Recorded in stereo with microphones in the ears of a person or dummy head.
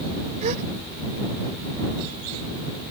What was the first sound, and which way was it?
A gasp, 40° right (ahead or behind).